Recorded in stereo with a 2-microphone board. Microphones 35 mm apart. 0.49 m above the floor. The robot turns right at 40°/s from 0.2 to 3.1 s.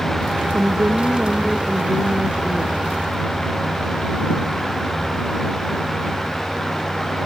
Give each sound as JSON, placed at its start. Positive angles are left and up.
{"t": 0.5, "sound": "a woman speaking", "azimuth_deg": -70}